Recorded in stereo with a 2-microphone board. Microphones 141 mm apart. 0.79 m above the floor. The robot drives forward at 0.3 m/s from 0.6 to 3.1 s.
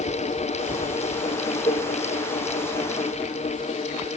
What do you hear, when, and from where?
1.6 s a cowbell: centre (ahead or behind), 10 m